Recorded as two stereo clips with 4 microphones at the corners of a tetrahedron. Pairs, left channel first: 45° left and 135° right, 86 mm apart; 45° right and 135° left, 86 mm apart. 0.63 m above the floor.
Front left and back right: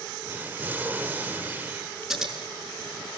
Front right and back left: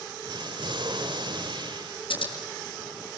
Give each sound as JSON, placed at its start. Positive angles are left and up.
{"t": 0.2, "sound": "an explosion", "azimuth_deg": 155, "distance_m": 1.7}
{"t": 2.1, "sound": "scissors", "azimuth_deg": -50, "distance_m": 6.5}